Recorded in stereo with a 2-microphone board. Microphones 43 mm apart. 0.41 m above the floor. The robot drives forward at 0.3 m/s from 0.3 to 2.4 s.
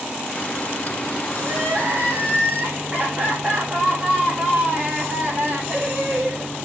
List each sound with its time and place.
1.4 s crying: 40° right (ahead or behind), 6.5 m; by 6.5 s 35° right (ahead or behind), 7 m